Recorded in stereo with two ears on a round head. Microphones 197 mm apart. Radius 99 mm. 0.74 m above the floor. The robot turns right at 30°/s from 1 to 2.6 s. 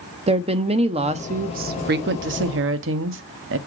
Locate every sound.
0.3 s a woman speaking: 150° right, 0.7 m; by 3.6 s 100° right, 0.7 m